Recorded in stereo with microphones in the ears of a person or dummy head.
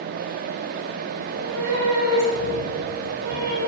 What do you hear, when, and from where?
1.2 s a cat meowing: 75° right (ahead or behind), 3.5 m; by 3.6 s 55° right (ahead or behind), 6 m